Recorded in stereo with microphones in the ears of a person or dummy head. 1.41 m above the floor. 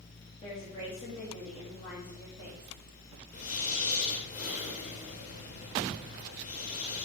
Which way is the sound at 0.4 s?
20° left (ahead or behind).